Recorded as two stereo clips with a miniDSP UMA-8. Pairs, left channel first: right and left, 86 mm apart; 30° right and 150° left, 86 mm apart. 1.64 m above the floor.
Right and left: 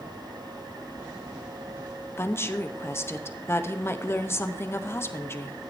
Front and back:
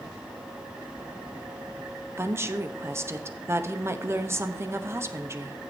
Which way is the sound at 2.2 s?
150° right.